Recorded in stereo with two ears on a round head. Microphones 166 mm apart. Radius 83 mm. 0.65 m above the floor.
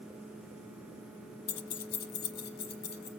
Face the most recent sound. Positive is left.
turn(degrees=55)  # may be behind; listen again after turning